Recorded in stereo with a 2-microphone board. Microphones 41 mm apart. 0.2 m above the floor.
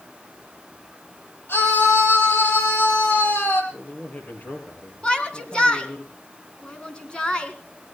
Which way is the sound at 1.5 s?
75° left (ahead or behind).